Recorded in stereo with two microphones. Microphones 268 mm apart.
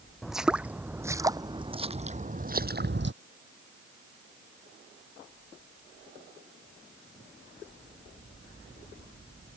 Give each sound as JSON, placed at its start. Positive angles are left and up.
{"t": 0.2, "sound": "footsteps", "side_deg": 0}